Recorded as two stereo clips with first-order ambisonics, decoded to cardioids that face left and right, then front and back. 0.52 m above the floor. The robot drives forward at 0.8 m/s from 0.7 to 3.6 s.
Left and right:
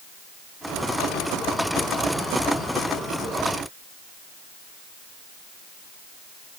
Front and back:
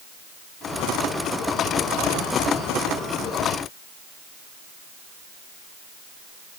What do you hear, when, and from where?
Only background noise.